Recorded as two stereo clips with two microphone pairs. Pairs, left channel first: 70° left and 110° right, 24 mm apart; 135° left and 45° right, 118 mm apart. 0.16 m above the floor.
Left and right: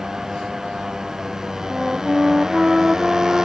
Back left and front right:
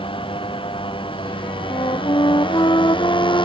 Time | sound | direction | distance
0.0 | a motorcycle | 175° right | ?
1.7 | a flute | 175° right | ?